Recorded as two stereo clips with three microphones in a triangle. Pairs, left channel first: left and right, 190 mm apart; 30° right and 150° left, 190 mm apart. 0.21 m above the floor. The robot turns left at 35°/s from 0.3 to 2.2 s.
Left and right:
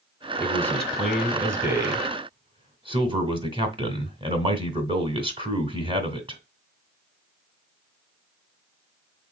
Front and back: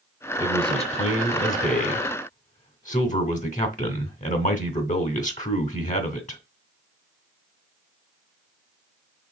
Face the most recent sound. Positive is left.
turn(degrees=-40)